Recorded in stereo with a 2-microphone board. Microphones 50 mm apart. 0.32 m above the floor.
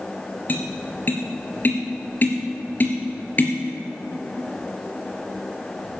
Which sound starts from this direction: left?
Tapping, at 0.5 s.